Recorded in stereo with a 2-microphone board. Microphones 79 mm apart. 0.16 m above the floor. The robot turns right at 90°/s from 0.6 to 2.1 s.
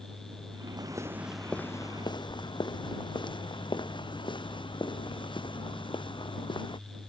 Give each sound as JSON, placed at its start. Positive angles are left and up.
{"t": 0.8, "sound": "footsteps", "side_deg": -60}